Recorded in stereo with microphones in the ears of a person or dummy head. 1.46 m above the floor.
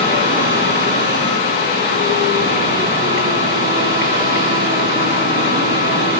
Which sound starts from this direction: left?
A machine running, at 0.0 s.